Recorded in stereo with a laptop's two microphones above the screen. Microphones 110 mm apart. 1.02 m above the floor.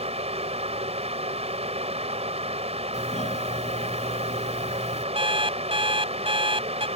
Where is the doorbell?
85° left.